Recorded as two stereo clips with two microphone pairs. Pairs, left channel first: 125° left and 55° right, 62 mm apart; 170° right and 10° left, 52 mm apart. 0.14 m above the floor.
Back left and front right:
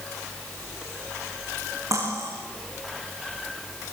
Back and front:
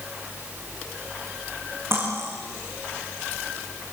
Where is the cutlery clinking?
25° right, 7 m.